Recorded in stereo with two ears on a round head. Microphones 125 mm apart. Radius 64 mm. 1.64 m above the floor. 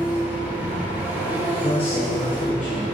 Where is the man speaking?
40° left (ahead or behind), 1.2 m.